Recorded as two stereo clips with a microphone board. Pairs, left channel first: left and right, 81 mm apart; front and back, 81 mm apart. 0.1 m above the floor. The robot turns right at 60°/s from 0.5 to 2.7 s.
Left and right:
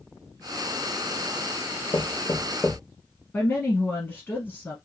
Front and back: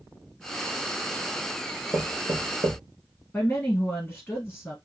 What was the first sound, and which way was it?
Knocking, 130° left.